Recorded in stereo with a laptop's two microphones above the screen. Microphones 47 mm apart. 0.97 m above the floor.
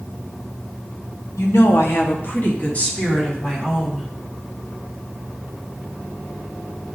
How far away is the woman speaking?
About 1.3 m.